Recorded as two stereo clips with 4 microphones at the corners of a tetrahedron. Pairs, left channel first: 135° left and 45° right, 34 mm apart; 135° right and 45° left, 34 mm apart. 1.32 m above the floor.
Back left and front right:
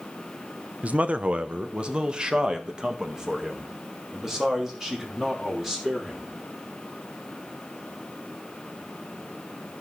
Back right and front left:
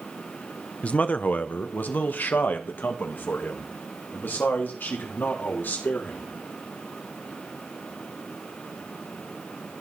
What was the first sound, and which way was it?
A man speaking, 85° right.